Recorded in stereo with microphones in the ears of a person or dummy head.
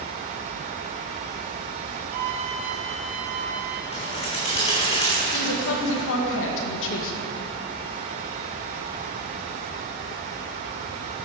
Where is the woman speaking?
70° left (ahead or behind), 1.9 m.